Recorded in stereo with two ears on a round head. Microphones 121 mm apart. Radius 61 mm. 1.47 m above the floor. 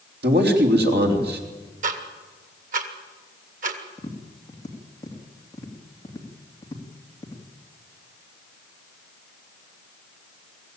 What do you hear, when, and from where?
0.2 s a man speaking: 80° right, 3.5 m
1.8 s ticking: 65° right (ahead or behind), 2 m
4.0 s tapping: 25° left (ahead or behind), 2.5 m